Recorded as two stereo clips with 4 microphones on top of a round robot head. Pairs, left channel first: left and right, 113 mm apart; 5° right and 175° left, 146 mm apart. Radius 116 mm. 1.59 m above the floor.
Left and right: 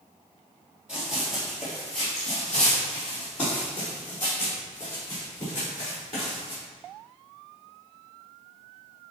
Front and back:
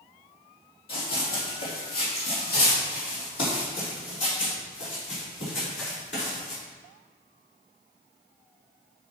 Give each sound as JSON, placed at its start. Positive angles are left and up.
{"t": 0.9, "sound": "running footsteps", "azimuth_deg": -10, "distance_m": 3.0}